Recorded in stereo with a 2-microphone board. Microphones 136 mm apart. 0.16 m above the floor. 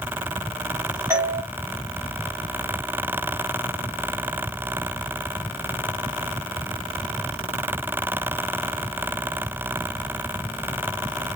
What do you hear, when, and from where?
1.1 s a doorbell: 20° right (ahead or behind), 1.4 m